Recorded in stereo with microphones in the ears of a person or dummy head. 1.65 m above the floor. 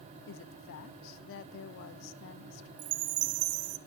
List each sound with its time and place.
0.3 s a woman speaking: 60° left (ahead or behind), 1.1 m
2.8 s a chime: 85° right, 1.2 m